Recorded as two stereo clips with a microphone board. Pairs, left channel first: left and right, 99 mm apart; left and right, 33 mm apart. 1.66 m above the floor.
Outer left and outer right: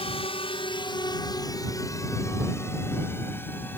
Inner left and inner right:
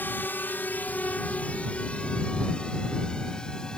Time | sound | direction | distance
0.0 | a drone | 75° left (ahead or behind) | ?